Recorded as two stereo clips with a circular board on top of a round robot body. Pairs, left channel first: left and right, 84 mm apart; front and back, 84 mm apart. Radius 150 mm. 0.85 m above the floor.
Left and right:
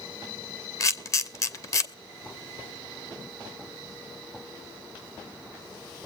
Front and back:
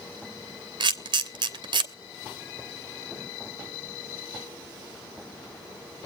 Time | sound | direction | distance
0.8 | a camera shutter | 145° left | 1.0 m